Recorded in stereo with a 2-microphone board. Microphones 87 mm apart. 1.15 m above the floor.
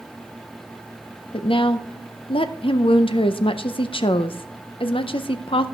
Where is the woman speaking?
80° left, 0.5 m.